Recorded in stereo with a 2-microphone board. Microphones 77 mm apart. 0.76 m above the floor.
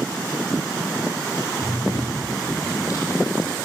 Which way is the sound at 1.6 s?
45° left (ahead or behind).